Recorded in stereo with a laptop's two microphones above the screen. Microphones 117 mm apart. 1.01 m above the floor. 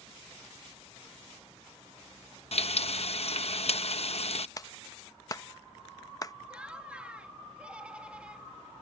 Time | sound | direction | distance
2.5 | frying | 60° left (ahead or behind) | ?
4.6 | a clap | 30° left (ahead or behind) | ?
6.5 | laughter | 10° right (ahead or behind) | ?